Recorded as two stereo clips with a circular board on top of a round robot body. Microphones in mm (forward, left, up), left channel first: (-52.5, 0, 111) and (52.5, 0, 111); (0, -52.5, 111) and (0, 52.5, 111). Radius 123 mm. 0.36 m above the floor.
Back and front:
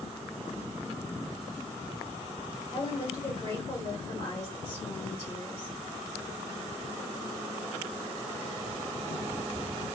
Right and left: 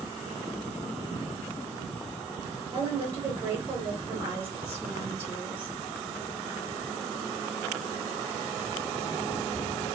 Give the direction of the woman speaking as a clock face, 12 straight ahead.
8 o'clock.